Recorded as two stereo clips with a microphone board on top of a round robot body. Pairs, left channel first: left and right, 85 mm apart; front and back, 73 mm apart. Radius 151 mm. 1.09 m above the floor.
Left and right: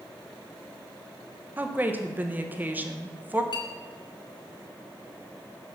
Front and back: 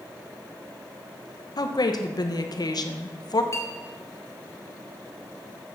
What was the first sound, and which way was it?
A woman speaking, 20° right.